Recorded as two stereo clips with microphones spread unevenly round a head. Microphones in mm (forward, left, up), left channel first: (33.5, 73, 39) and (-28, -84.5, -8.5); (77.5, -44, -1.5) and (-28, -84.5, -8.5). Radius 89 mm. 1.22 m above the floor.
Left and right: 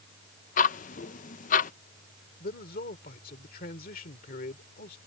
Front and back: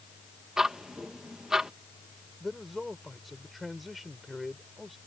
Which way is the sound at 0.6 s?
115° left.